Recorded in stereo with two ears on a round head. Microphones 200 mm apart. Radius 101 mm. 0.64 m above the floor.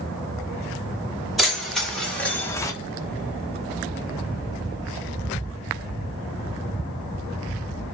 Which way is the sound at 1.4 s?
Centre (ahead or behind).